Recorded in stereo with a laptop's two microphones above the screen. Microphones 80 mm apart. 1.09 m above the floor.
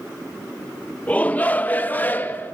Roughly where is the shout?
Centre.